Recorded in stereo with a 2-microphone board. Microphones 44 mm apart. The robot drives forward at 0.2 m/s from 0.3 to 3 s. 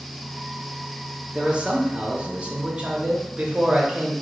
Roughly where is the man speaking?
Right.